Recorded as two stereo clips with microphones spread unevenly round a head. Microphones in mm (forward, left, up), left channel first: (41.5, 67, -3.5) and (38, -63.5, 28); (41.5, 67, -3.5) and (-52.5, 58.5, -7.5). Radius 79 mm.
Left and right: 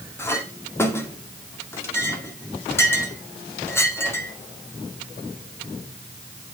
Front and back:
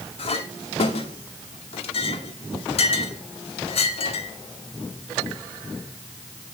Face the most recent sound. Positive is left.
turn(degrees=20)